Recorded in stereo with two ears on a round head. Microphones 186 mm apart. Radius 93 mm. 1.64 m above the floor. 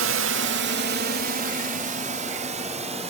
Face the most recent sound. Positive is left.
turn(degrees=-30)  # may be behind; listen again after turning